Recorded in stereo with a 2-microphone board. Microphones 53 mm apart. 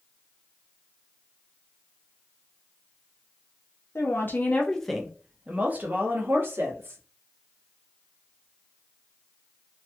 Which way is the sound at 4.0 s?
50° left (ahead or behind).